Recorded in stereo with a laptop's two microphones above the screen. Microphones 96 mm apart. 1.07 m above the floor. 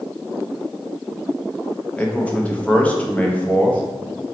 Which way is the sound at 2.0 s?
15° left (ahead or behind).